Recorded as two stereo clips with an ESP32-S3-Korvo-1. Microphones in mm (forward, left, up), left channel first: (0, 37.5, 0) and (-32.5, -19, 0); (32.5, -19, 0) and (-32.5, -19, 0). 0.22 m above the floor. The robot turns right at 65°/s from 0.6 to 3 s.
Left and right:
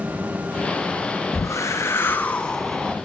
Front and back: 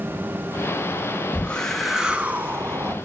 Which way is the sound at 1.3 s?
55° left.